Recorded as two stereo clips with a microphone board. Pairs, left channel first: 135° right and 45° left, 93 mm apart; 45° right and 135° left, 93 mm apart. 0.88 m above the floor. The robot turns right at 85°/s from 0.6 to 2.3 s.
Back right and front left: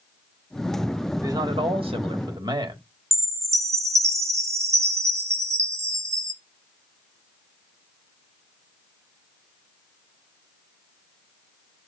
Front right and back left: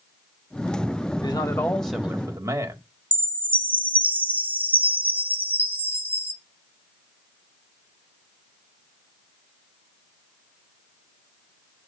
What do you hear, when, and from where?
1.2 s a man speaking: 15° right, 1.6 m; by 2.8 s 80° left, 1.6 m
3.1 s a chime: 75° left, 1.1 m